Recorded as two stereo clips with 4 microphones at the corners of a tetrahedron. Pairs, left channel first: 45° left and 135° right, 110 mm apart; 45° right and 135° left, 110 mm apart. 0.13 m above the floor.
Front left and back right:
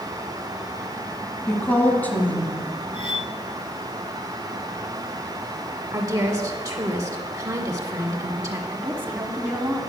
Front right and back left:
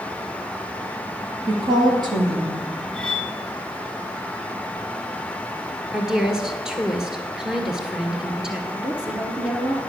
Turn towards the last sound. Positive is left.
turn(degrees=-165)